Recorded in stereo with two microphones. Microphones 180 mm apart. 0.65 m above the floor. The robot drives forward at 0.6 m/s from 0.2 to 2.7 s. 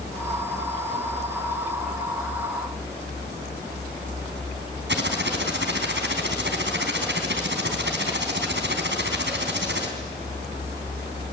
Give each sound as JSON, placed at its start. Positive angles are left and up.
{"t": 4.9, "sound": "typing on a keyboard", "side_deg": -75, "distance_m": 3.5}